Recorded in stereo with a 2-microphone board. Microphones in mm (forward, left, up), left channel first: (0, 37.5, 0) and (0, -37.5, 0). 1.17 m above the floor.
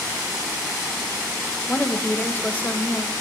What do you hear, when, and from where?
1.7 s a woman speaking: 25° left (ahead or behind), 0.8 m